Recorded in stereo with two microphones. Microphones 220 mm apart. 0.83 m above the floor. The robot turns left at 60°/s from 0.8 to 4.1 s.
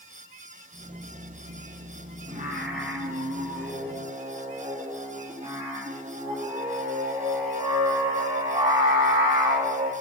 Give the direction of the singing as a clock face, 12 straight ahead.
1 o'clock.